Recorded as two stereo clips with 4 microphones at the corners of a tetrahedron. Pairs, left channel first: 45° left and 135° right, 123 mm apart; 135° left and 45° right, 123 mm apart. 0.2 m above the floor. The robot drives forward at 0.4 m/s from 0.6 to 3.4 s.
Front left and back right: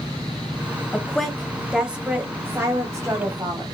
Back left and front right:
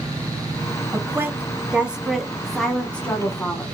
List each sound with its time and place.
0.9 s a woman speaking: 25° right, 1.1 m; by 3.6 s 160° right, 1.2 m